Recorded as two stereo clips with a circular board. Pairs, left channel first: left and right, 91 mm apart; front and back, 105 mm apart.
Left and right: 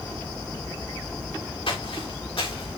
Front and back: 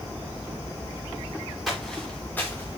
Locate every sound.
1.7 s footsteps: 90° left, 3.5 m; by 2.8 s 60° left, 3.5 m